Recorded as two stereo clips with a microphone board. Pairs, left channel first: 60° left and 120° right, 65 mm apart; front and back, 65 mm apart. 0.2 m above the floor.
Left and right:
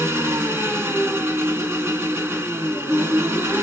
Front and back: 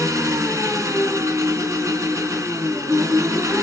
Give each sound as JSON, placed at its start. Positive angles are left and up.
{"t": 0.0, "sound": "an engine running", "azimuth_deg": -165, "distance_m": 1.2}